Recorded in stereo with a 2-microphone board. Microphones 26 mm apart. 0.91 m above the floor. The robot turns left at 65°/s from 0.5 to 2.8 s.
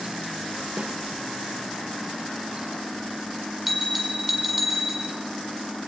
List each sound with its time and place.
0.8 s a snare drum: 65° right (ahead or behind), 2.5 m; by 0.9 s 60° right (ahead or behind), 2.5 m
3.7 s a bell: 10° right (ahead or behind), 2.5 m